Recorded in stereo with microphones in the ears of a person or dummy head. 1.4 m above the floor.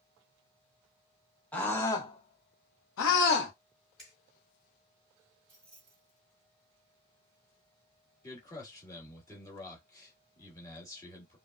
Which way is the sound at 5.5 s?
5° left (ahead or behind).